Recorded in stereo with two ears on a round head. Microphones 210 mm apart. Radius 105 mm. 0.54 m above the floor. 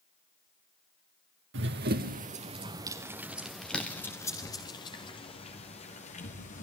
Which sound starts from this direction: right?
Running footsteps, at 1.5 s.